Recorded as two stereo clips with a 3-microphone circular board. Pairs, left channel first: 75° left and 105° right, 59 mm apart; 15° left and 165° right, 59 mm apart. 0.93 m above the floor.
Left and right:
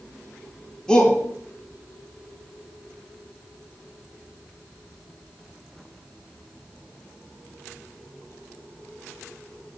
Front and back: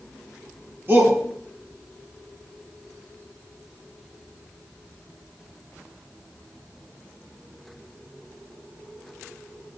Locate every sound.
0.9 s a shout: 150° left, 2.0 m